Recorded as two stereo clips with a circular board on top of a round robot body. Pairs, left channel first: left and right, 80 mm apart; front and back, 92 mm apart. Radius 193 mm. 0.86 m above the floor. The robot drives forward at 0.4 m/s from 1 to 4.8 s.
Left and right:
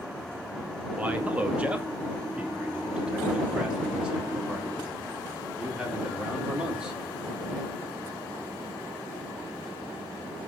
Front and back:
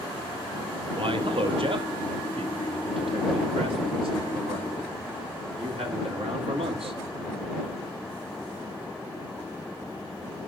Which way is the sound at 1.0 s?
160° right.